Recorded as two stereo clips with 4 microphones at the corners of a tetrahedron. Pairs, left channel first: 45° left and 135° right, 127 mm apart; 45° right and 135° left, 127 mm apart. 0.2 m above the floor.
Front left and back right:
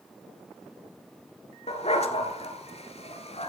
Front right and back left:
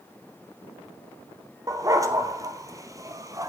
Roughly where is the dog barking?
Left.